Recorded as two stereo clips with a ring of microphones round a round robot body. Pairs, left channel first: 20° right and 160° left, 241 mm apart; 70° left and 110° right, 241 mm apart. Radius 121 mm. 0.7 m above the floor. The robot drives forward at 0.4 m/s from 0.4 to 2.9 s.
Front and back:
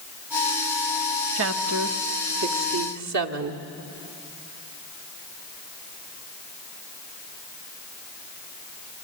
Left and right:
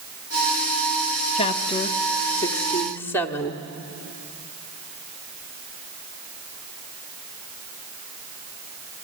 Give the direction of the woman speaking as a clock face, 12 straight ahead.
8 o'clock.